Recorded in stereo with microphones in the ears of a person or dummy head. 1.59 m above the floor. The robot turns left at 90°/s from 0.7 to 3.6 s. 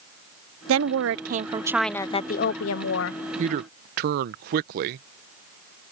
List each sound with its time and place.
0.7 s a woman speaking: 80° right; by 3.2 s 55° left
3.4 s a man speaking: 40° right (ahead or behind); by 5.1 s 50° right (ahead or behind)